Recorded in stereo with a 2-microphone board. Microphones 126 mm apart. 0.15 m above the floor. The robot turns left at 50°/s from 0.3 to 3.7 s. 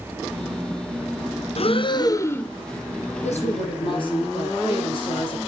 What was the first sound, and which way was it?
Breathing, 60° left.